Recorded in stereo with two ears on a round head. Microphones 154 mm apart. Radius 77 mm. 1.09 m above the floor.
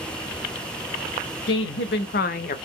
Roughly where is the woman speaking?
Left.